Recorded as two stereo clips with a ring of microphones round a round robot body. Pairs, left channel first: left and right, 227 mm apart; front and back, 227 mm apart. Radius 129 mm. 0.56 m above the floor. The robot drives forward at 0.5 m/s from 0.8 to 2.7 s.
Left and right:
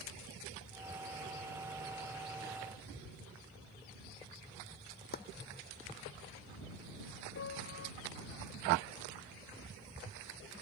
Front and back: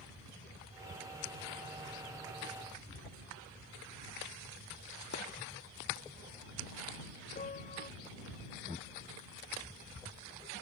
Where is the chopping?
40° left.